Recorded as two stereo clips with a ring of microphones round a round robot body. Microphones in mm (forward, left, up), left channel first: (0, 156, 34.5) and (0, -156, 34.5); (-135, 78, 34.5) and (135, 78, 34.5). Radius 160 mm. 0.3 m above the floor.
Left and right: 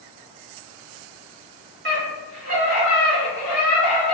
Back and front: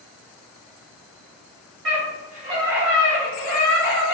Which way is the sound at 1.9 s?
35° right.